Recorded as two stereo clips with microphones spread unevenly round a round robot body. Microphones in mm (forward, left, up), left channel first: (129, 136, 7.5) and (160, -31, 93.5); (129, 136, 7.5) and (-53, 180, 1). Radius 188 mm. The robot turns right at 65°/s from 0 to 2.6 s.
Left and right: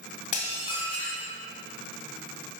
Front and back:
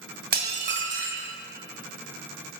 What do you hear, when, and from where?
0.3 s dishes clattering: 125° left, 1.1 m; by 1.3 s 170° right, 1.1 m